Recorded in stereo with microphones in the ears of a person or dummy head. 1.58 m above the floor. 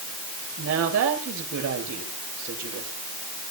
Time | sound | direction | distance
0.6 | a woman speaking | 80° right | 7 m